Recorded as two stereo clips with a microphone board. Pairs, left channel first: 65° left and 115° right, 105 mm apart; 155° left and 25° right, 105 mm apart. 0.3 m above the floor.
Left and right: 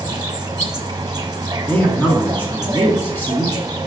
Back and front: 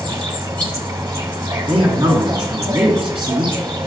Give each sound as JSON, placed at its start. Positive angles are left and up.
{"t": 0.0, "sound": "an insect", "azimuth_deg": -65, "distance_m": 1.2}
{"t": 1.7, "sound": "a man speaking", "azimuth_deg": 0, "distance_m": 3.0}